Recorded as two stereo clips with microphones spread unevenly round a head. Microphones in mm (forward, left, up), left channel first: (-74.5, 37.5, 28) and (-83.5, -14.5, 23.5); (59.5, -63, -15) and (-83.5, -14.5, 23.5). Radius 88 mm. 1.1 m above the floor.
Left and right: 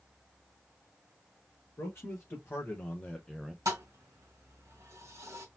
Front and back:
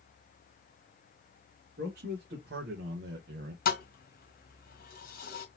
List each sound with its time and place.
1.8 s a man speaking: 120° left, 1.8 m; by 3.5 s 175° right, 0.6 m
3.6 s a thud: 45° right, 1.5 m